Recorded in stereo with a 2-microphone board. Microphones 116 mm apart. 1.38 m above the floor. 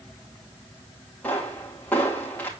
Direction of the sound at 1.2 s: 15° left (ahead or behind).